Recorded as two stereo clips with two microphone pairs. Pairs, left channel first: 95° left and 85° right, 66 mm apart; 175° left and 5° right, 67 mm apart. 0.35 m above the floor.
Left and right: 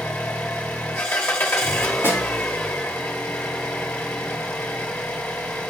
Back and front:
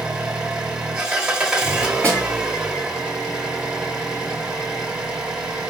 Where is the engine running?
60° left, 0.8 m.